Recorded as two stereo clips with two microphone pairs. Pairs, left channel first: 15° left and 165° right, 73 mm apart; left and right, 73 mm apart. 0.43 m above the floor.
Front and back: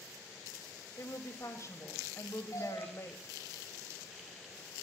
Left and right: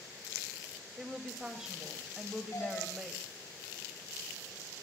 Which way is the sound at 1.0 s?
10° right.